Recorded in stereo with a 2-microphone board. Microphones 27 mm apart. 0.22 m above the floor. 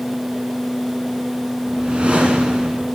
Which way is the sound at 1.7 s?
45° right (ahead or behind).